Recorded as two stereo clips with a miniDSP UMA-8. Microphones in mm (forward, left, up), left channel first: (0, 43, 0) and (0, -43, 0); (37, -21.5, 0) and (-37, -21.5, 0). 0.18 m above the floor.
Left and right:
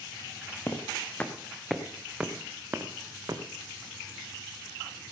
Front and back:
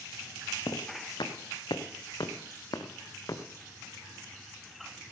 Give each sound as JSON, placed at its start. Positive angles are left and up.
{"t": 0.7, "sound": "footsteps", "azimuth_deg": 30, "distance_m": 2.5}